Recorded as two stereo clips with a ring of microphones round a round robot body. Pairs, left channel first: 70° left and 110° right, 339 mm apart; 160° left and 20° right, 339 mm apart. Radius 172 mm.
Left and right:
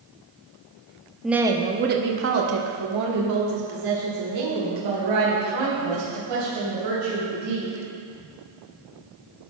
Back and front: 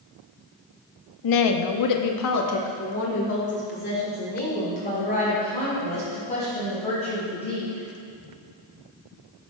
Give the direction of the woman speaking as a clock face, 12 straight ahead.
7 o'clock.